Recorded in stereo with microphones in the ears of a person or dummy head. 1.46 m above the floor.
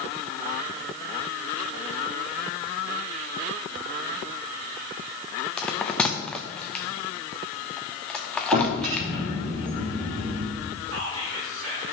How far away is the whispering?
About 3 m.